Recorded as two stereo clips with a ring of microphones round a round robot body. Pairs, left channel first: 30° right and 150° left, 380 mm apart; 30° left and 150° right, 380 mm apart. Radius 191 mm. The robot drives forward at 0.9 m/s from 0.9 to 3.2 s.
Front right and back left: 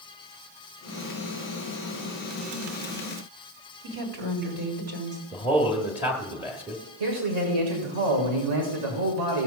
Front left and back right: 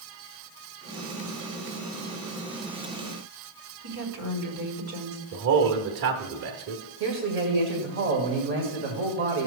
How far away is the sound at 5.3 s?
About 1.4 m.